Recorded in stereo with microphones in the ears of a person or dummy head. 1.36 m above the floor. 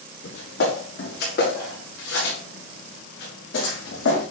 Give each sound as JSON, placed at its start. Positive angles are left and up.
{"t": 0.2, "sound": "footsteps", "side_deg": 60, "distance_m": 7.0}